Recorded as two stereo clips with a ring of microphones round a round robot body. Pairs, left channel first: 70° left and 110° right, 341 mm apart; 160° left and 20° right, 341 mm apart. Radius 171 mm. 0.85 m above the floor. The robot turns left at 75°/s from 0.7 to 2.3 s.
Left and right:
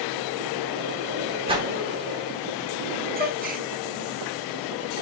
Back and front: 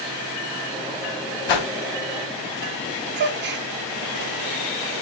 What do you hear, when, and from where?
1.5 s a whoosh: 175° left, 1.0 m; by 1.7 s 160° left, 1.0 m
3.2 s a gasp: 65° right, 0.7 m